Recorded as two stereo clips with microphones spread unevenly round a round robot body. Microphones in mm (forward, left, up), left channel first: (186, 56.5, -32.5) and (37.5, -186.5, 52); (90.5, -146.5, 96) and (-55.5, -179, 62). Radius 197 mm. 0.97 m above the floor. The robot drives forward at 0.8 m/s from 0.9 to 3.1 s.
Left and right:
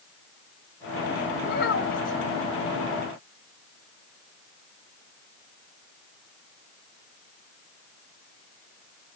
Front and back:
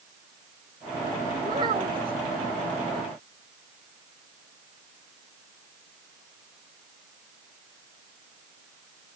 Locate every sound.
1.4 s a child speaking: 120° left; by 2.2 s 125° left